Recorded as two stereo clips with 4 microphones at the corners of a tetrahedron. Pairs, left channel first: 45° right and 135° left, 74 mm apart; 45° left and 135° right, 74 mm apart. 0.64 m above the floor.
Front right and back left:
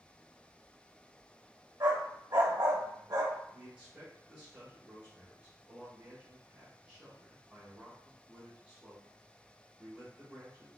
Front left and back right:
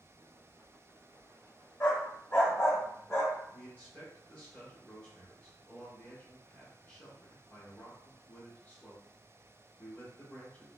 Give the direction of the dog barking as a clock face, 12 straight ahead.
9 o'clock.